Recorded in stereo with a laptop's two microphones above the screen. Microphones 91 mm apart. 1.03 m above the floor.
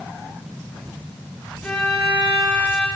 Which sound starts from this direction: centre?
A violin, at 1.6 s.